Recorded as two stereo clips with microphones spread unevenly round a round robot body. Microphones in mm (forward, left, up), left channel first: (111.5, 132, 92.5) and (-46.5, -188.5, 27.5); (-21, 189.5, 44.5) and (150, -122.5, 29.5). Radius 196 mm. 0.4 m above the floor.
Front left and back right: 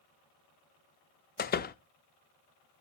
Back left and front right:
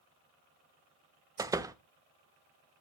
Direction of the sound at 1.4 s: 5° left.